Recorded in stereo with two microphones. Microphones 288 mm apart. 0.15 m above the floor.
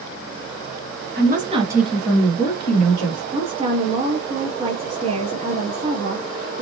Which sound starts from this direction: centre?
A woman speaking, at 3.3 s.